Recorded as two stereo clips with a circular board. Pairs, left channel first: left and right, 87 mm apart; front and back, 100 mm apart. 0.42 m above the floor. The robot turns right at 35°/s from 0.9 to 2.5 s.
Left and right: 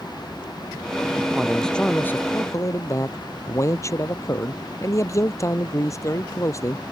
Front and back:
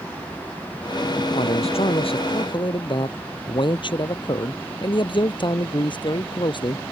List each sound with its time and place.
1.4 s a man speaking: 5° right; by 6.8 s 35° left